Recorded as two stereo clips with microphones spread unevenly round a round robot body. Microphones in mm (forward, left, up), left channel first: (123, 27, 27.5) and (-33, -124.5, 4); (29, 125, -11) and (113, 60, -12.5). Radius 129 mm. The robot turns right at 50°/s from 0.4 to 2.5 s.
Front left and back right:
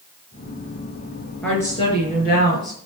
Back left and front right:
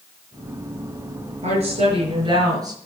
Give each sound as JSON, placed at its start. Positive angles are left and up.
{"t": 1.4, "sound": "a woman speaking", "azimuth_deg": -40, "distance_m": 5.5}